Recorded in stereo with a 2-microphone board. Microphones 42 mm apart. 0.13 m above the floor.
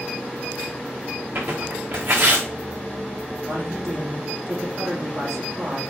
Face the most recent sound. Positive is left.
turn(degrees=-65)  # may be behind; listen again after turning